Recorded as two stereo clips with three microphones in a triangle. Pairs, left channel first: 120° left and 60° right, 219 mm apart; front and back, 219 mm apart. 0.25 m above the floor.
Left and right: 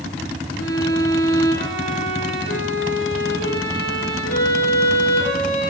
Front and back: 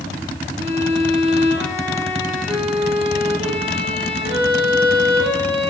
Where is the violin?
115° left, 8.5 m.